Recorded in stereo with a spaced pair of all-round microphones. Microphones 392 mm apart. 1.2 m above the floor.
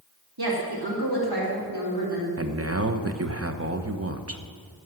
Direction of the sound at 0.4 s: 70° right (ahead or behind).